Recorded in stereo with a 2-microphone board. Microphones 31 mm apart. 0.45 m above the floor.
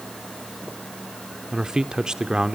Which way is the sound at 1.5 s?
20° right (ahead or behind).